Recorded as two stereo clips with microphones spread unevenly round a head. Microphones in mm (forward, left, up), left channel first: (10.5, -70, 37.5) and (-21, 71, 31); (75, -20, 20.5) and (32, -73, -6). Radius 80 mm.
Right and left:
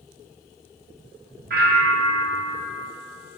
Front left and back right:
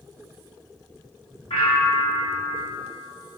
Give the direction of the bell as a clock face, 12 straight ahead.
9 o'clock.